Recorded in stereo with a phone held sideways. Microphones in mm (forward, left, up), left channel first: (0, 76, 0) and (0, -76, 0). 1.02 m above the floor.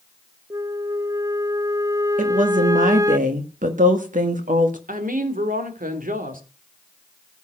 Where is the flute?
20° right (ahead or behind), 0.5 m.